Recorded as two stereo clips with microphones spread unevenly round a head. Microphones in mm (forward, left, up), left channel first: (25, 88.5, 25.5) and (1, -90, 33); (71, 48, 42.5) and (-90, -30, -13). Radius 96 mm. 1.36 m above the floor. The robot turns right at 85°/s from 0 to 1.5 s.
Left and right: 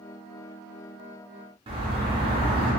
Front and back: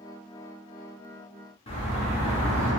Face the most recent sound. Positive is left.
turn(degrees=-35)